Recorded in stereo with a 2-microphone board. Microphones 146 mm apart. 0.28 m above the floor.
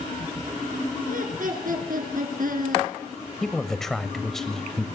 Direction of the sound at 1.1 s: 65° right (ahead or behind).